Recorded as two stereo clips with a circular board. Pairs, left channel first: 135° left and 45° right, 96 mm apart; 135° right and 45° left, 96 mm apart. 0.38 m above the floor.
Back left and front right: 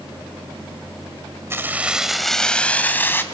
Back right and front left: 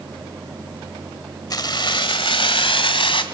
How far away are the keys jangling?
About 1.4 m.